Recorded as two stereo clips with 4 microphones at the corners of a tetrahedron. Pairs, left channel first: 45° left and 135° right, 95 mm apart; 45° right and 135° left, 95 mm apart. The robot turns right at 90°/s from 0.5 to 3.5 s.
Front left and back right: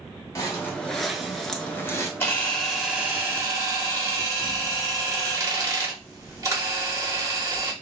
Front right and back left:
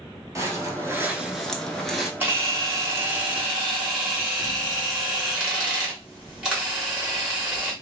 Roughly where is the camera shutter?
Left.